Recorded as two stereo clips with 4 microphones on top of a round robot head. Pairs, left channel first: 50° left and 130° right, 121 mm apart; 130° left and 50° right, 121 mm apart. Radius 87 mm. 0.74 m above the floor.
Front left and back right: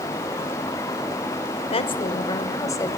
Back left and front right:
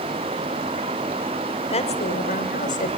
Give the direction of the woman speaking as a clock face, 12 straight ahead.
9 o'clock.